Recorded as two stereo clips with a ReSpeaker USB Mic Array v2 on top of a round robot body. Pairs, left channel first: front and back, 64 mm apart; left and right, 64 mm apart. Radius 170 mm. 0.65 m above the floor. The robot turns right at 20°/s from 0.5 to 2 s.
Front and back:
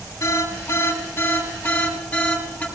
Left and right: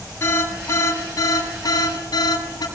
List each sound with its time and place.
0.2 s an alarm: 40° left, 7.5 m; by 2.6 s 70° left, 7.5 m